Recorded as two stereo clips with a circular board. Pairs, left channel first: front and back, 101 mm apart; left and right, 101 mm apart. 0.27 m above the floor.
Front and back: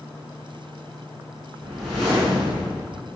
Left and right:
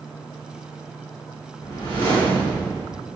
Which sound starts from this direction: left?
A whoosh, at 1.6 s.